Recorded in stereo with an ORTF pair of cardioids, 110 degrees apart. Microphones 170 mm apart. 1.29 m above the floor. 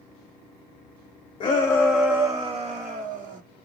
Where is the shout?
30° left, 0.6 m; by 3.4 s 60° right, 0.9 m.